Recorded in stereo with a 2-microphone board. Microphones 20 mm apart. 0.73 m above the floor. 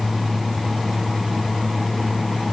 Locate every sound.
Only background noise.